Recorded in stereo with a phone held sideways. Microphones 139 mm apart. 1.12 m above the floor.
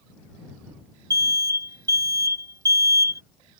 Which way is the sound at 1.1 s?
25° right (ahead or behind).